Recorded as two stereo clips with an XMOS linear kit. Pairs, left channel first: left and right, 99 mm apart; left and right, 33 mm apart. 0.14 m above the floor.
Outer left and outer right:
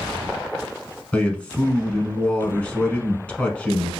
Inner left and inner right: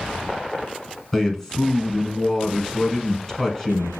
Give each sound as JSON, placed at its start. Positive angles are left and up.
{"t": 1.1, "sound": "a man speaking", "side_deg": 10, "distance_m": 1.0}